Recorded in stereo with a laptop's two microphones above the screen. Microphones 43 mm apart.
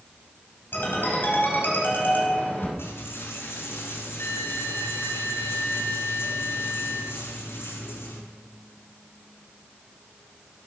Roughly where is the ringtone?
Left.